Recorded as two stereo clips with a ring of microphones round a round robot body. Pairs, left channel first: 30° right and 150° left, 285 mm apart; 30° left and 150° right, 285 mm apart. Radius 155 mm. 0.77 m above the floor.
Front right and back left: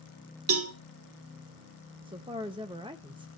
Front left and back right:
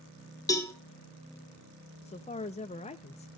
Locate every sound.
0.5 s a cowbell: 110° left, 1.1 m
2.0 s a woman speaking: 85° left, 0.7 m